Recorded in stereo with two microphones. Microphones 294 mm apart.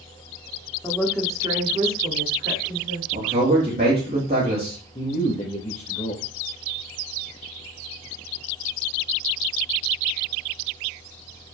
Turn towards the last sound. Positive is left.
turn(degrees=25)  # may be behind; listen again after turning